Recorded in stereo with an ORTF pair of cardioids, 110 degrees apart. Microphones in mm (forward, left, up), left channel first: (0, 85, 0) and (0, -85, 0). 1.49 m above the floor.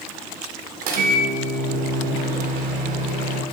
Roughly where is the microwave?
Ahead right.